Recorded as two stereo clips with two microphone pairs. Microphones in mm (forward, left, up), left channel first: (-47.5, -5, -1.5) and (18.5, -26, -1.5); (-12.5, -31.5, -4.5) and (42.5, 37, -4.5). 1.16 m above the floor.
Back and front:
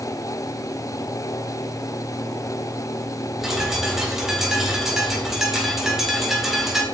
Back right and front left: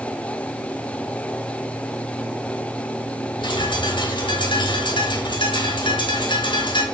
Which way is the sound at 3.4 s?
105° right.